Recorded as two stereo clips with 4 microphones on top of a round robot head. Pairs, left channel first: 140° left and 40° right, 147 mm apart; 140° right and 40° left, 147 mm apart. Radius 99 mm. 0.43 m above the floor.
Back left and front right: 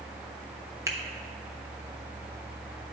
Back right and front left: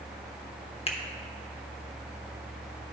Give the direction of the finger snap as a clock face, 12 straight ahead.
3 o'clock.